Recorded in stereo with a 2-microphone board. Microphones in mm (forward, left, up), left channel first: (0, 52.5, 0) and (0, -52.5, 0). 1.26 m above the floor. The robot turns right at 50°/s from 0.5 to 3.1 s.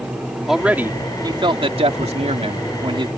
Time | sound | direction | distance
0.5 | a man speaking | 175° right | ?